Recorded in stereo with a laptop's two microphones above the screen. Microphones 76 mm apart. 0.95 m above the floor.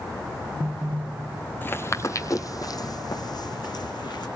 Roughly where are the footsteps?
Left.